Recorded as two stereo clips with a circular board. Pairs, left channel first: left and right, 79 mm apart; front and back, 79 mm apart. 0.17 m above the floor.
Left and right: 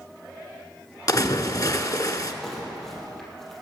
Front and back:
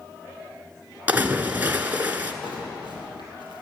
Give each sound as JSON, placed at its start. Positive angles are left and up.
{"t": 1.1, "sound": "a splash", "azimuth_deg": 115, "distance_m": 1.3}
{"t": 2.4, "sound": "crumpling", "azimuth_deg": 5, "distance_m": 3.5}